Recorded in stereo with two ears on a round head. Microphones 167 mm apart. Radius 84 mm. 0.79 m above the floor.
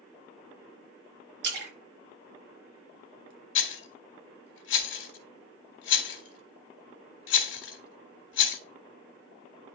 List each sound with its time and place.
1.4 s a splash: 55° right (ahead or behind), 3.5 m
3.5 s a rattle: 70° left (ahead or behind), 1.9 m